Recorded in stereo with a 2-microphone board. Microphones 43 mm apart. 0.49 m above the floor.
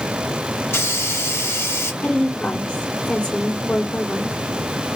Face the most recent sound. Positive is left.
turn(degrees=30)  # may be behind; listen again after turning